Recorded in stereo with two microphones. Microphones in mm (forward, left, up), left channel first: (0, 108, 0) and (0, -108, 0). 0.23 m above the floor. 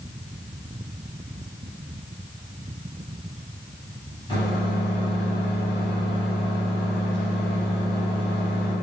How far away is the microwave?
About 1.6 m.